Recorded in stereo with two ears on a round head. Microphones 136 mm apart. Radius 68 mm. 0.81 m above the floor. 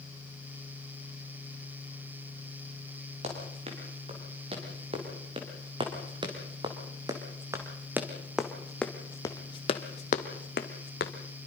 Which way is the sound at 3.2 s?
40° right (ahead or behind).